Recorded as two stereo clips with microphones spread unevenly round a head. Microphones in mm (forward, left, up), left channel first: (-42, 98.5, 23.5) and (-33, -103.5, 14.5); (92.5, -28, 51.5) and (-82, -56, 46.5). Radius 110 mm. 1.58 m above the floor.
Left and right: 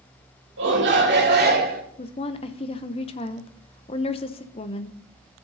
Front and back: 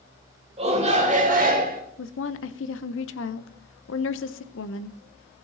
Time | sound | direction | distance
0.6 | a shout | 115° right | 2.5 m
2.0 | a woman speaking | 30° left | 0.5 m